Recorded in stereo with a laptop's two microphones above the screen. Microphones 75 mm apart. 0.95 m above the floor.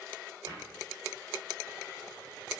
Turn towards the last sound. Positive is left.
turn(degrees=-60)  # may be behind; listen again after turning